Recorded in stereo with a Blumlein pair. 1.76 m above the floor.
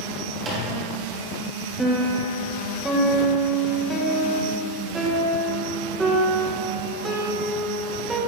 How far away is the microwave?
About 1.4 m.